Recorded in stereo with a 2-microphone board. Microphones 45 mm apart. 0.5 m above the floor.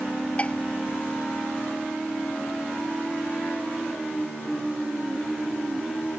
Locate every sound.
0.4 s dishes clattering: 30° left (ahead or behind)